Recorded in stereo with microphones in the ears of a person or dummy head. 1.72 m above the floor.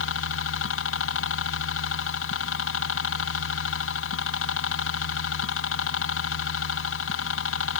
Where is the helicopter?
65° left (ahead or behind).